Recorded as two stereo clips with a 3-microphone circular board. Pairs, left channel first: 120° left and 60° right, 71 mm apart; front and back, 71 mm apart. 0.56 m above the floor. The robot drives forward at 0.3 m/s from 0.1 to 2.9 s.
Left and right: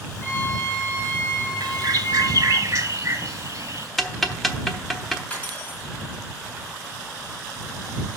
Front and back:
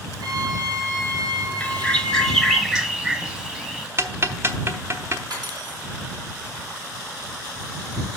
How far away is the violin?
About 2 m.